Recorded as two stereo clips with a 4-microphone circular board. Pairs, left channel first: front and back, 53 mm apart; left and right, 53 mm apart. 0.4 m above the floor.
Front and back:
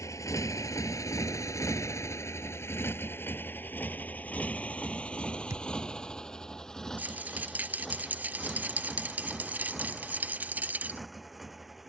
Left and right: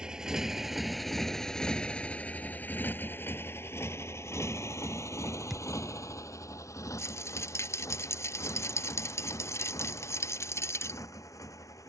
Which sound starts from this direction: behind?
A thud, at 5.5 s.